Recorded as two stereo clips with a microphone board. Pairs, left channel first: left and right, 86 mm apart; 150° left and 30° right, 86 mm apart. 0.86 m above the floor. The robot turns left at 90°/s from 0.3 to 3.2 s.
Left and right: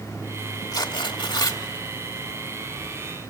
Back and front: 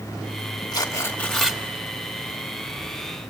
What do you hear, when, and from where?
0.7 s tearing paper: 120° left, 1.8 m; by 1.6 s 40° left, 1.8 m